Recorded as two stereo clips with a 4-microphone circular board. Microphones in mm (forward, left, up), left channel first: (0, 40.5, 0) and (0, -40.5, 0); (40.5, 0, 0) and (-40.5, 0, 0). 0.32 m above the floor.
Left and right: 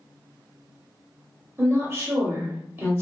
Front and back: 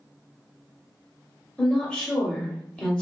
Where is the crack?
No crack in this recording.